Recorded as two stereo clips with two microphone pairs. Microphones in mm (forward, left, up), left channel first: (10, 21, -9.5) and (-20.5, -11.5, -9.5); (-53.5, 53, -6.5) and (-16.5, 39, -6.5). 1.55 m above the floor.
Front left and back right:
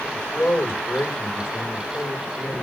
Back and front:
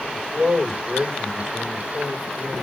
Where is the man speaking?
60° left, 5.5 m.